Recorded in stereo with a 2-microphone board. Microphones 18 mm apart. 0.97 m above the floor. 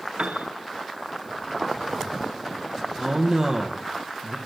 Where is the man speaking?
30° right (ahead or behind), 0.8 m.